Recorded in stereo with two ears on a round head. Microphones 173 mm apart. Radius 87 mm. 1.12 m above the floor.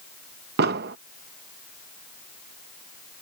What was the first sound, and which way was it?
An explosion, 55° right (ahead or behind).